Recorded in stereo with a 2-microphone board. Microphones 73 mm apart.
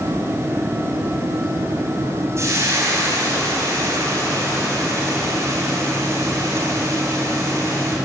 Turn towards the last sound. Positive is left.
turn(degrees=-40)  # may be behind; listen again after turning